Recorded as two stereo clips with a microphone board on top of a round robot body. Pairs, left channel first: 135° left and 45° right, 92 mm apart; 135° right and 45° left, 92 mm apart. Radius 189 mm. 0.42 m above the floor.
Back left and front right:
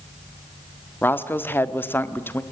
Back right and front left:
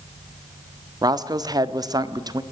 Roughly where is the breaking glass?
No breaking glass in this recording.